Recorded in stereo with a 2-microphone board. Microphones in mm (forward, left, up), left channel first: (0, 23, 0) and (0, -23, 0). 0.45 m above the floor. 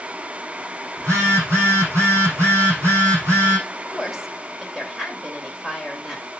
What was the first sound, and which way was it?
A phone buzzing, 80° right.